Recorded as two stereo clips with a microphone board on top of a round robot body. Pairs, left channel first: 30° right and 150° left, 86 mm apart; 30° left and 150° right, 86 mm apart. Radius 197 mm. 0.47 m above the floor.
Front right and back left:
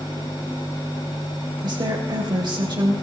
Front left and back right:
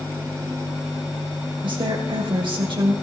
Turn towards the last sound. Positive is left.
turn(degrees=-175)